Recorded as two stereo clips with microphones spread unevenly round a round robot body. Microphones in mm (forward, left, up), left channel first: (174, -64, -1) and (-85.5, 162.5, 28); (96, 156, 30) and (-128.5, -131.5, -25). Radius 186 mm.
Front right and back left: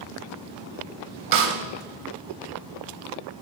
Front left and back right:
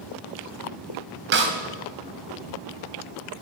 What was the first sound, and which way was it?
A snare drum, 175° left.